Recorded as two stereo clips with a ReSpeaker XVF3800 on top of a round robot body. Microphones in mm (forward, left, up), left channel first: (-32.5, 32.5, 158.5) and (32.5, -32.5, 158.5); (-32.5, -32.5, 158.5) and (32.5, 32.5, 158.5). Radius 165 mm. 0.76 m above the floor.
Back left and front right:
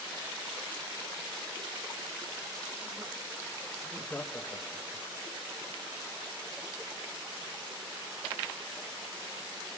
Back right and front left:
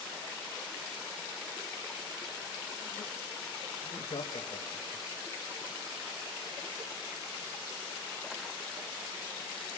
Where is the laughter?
145° right, 2 m; by 5.1 s 175° right, 1.5 m.